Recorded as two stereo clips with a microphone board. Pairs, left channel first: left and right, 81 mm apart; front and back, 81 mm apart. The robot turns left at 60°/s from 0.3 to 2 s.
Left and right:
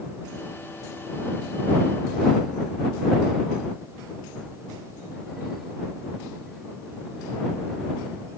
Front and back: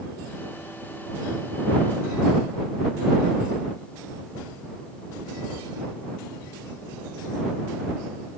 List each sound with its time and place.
Only background noise.